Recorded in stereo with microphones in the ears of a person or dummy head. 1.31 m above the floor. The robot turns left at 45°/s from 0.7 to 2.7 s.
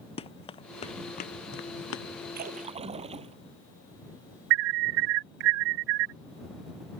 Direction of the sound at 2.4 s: 50° right (ahead or behind).